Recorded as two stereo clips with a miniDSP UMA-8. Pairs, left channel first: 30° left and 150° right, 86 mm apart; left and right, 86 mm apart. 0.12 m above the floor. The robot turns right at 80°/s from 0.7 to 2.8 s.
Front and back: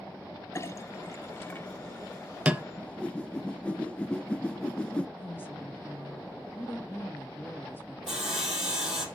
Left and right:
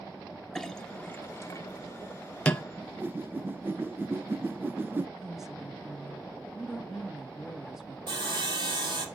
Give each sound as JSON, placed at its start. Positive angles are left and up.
{"t": 0.6, "sound": "a clink", "azimuth_deg": 10, "distance_m": 0.7}
{"t": 2.8, "sound": "a whoosh", "azimuth_deg": -40, "distance_m": 0.6}
{"t": 5.2, "sound": "a woman speaking", "azimuth_deg": -10, "distance_m": 1.4}
{"t": 8.1, "sound": "sawing", "azimuth_deg": -65, "distance_m": 2.5}